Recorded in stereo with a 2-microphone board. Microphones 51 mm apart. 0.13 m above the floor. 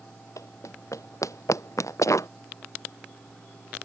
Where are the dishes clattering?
No dishes clattering in this recording.